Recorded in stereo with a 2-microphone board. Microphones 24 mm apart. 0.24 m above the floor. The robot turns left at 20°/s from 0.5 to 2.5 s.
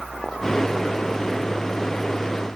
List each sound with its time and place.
Only background noise.